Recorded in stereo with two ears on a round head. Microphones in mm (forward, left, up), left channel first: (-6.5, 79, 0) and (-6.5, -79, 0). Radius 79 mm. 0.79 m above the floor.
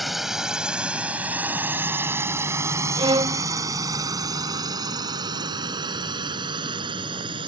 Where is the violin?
25° right (ahead or behind).